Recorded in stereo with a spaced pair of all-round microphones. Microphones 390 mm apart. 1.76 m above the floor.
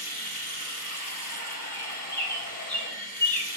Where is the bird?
10° right (ahead or behind), 1.8 m.